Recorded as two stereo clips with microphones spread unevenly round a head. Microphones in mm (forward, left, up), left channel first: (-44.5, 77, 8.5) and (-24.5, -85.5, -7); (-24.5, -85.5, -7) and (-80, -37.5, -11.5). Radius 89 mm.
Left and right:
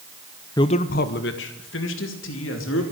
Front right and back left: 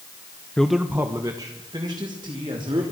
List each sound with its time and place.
0.6 s a man speaking: 35° left, 0.7 m; by 2.8 s 85° left, 3.5 m